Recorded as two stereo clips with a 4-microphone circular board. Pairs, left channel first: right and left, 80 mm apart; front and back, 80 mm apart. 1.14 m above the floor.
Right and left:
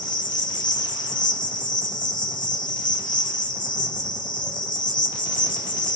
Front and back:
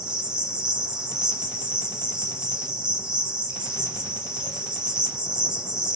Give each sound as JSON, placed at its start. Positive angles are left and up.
{"t": 0.0, "sound": "an insect", "azimuth_deg": -100, "distance_m": 4.0}